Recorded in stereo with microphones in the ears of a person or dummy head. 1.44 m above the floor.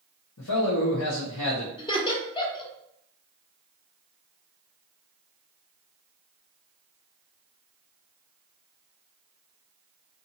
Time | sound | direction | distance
0.4 | a man speaking | 85° left | 0.8 m
1.8 | laughter | 25° left (ahead or behind) | 0.8 m